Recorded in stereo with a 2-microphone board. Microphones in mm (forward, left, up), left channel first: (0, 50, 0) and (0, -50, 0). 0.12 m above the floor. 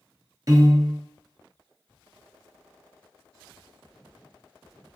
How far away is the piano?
About 0.6 m.